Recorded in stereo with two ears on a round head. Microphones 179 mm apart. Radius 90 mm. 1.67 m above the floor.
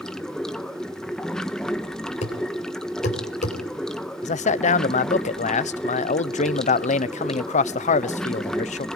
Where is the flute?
I don't hear a flute.